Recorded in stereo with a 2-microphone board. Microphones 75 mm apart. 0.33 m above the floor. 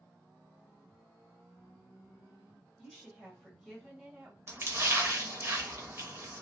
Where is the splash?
30° right (ahead or behind), 0.6 m.